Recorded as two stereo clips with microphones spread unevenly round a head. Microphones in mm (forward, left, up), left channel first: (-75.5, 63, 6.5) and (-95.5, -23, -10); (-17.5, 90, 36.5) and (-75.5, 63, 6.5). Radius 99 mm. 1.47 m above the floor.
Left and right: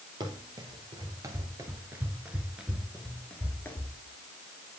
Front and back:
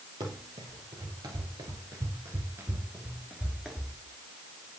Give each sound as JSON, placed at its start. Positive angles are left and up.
{"t": 0.2, "sound": "running footsteps", "azimuth_deg": -135, "distance_m": 2.0}